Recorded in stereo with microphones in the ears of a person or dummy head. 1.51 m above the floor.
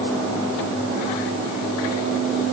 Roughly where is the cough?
I don't hear a cough.